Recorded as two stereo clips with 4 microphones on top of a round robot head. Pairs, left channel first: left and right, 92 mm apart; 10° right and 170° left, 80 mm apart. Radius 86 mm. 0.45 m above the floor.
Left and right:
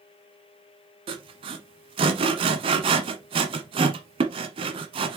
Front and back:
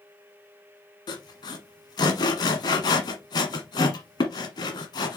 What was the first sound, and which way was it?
Sawing, 55° right.